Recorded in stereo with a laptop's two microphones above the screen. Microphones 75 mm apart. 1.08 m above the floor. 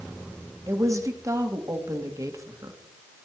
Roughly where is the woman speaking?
Right.